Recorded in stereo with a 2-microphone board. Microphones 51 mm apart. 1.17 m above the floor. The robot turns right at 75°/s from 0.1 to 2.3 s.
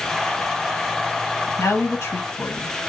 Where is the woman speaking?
80° left, 1.5 m; by 2.8 s 135° left, 1.5 m.